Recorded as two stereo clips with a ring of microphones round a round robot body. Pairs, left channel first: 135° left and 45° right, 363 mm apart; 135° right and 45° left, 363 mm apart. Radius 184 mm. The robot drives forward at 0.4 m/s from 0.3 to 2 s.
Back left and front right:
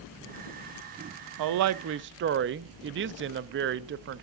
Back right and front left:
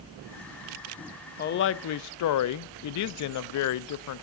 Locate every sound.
1.4 s a woman speaking: 70° right, 0.6 m; by 4.2 s 100° right, 0.6 m